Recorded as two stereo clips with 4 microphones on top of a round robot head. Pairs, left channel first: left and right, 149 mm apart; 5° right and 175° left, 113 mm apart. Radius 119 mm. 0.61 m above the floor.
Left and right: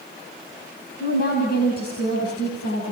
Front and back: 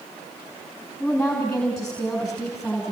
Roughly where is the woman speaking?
Left.